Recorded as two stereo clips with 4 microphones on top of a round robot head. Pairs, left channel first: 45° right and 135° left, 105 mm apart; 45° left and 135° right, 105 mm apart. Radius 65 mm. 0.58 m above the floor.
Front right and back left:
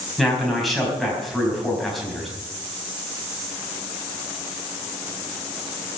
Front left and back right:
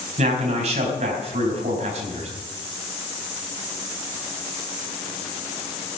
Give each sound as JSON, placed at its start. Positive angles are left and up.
{"t": 0.2, "sound": "a man speaking", "azimuth_deg": -135, "distance_m": 4.5}